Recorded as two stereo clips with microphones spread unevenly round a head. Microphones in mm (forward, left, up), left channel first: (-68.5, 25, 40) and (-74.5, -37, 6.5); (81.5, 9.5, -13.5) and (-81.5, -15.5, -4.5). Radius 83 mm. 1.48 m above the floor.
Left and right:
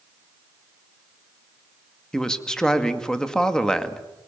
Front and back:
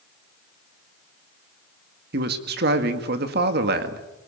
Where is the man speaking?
160° left, 2 m.